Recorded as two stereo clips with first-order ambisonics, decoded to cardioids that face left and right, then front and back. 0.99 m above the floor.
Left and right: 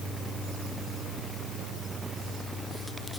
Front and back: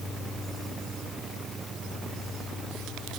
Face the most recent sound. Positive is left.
No sound to turn to.